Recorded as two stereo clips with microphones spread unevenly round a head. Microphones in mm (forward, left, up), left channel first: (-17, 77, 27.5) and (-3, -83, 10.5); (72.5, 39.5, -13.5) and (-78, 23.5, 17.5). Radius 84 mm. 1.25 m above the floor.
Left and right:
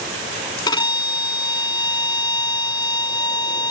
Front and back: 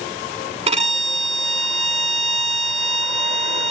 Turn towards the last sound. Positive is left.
turn(degrees=155)